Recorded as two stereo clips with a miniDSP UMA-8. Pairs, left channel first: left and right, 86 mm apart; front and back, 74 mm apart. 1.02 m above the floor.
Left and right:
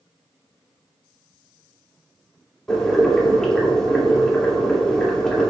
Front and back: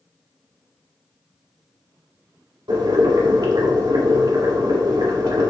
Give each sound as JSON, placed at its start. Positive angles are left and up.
{"t": 2.7, "sound": "boiling", "azimuth_deg": 170, "distance_m": 2.5}